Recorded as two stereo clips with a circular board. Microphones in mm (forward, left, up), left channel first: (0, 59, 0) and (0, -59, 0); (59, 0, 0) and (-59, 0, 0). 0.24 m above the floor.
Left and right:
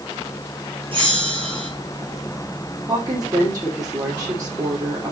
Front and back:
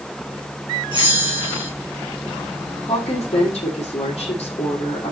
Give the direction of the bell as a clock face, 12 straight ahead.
2 o'clock.